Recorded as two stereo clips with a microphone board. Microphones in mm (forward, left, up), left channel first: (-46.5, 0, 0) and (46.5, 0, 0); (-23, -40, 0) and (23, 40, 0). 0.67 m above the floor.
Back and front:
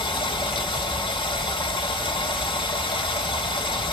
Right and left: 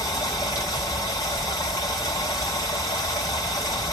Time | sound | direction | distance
0.0 | running water | 170° right | 1.3 m